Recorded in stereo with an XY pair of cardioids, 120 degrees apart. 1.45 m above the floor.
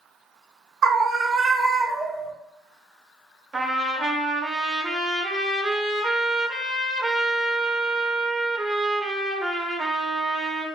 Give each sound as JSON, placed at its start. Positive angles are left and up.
{"t": 0.8, "sound": "a scream", "azimuth_deg": -55, "distance_m": 0.7}
{"t": 3.5, "sound": "a trumpet", "azimuth_deg": -25, "distance_m": 0.9}